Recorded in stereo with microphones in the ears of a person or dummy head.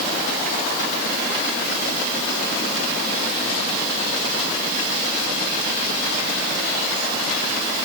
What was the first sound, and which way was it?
Only background noise.